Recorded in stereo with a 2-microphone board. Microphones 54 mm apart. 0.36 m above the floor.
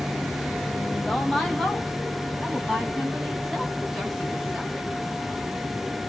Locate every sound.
0.9 s a woman speaking: 10° left (ahead or behind), 1.9 m